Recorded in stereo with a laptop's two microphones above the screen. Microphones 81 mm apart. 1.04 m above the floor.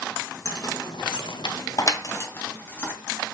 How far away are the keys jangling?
About 0.7 m.